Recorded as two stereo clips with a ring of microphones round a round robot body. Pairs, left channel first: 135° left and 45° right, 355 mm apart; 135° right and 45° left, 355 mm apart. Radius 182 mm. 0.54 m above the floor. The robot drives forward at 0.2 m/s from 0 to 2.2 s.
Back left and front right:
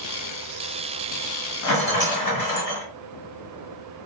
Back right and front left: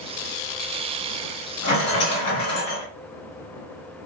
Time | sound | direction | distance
1.6 | a rattle | 175° left | 1.8 m